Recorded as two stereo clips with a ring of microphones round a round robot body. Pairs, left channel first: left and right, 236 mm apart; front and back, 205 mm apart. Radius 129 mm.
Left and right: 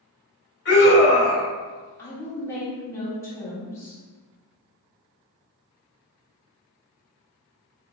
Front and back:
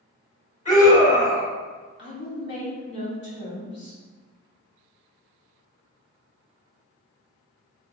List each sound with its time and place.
0.7 s a scream: 50° left, 1.7 m
2.0 s a woman speaking: 15° left, 1.6 m